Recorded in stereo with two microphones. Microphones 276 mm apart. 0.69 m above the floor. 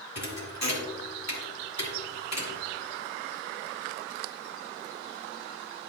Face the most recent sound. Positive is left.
turn(degrees=70)  # may be behind; listen again after turning